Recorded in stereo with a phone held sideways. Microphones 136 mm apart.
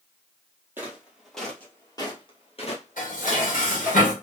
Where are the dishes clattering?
80° left, 1.4 m.